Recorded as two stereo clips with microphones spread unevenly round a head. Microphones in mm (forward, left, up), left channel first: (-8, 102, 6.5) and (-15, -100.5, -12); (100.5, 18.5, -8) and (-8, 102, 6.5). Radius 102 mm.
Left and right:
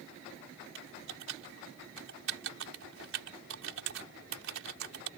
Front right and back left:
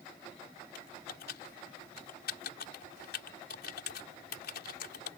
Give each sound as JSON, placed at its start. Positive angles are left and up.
{"t": 0.8, "sound": "typing on a keyboard", "azimuth_deg": -60}